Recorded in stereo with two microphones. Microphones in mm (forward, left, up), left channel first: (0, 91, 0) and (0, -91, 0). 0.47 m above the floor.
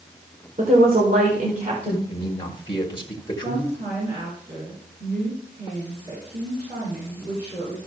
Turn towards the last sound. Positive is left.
turn(degrees=-70)  # may be behind; listen again after turning